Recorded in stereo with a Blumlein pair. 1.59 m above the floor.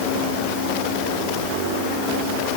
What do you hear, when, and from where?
Only background noise.